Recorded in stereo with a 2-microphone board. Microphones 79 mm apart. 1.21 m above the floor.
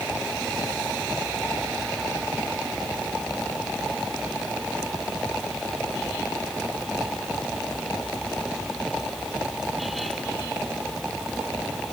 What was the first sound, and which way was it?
Only background noise.